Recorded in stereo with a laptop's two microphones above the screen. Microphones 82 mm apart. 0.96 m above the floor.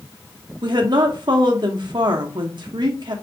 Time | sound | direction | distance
0.6 | a woman speaking | 60° right (ahead or behind) | 0.9 m